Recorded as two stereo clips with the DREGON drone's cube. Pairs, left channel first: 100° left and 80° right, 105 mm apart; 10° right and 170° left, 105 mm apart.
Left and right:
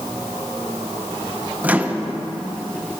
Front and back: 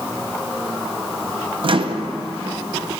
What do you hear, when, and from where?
1.6 s a microwave: 155° right, 0.5 m